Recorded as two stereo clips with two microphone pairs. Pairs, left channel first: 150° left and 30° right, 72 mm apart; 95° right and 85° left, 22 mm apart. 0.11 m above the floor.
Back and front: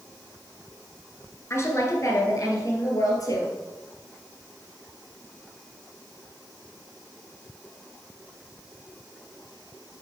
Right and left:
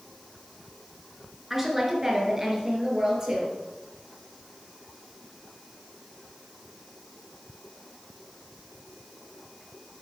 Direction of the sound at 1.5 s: 150° left.